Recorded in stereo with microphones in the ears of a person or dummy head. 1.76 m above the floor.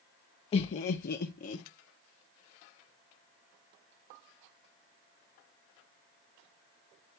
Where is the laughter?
30° left (ahead or behind), 0.6 m; by 1.6 s 35° left (ahead or behind), 1.0 m.